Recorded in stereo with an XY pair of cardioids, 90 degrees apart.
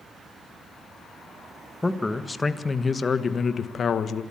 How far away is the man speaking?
About 1.6 m.